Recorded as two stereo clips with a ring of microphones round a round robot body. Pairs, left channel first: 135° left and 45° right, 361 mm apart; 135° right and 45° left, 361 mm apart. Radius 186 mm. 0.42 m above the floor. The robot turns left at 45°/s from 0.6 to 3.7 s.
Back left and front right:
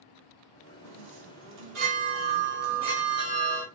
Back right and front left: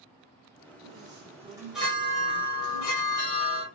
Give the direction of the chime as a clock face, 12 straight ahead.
12 o'clock.